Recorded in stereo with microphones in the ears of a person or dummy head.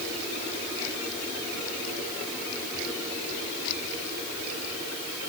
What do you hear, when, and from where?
Only background noise.